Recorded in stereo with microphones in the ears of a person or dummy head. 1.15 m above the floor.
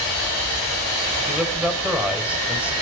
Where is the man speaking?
10° right (ahead or behind), 5 m.